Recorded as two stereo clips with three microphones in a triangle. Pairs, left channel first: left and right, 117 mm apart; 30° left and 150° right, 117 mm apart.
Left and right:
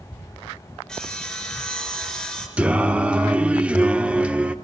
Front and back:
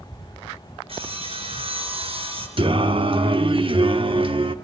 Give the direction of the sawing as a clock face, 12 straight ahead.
6 o'clock.